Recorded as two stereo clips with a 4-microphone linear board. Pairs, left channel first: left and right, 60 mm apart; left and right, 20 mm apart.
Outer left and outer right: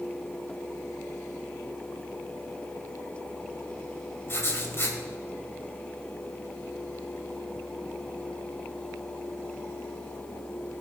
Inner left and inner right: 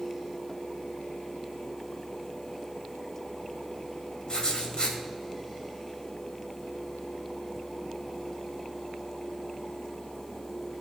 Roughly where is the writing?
Left.